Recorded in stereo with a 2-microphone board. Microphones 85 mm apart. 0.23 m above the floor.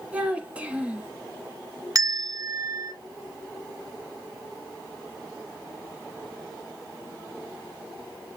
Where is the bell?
45° right (ahead or behind), 1.4 m.